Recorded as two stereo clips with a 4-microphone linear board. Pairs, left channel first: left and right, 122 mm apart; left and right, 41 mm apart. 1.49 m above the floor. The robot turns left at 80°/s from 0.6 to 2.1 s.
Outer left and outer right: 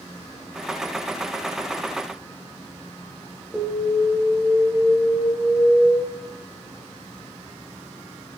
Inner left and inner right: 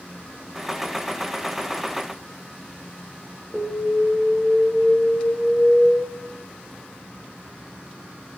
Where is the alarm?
Centre (ahead or behind), 3 m.